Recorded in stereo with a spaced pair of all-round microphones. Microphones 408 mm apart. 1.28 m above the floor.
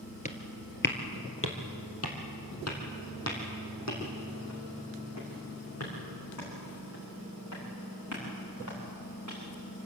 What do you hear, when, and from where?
0.2 s footsteps: 20° left (ahead or behind), 1.5 m; by 9.4 s 45° left (ahead or behind), 9 m